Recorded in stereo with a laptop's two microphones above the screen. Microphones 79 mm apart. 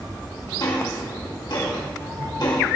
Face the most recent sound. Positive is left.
turn(degrees=65)  # may be behind; listen again after turning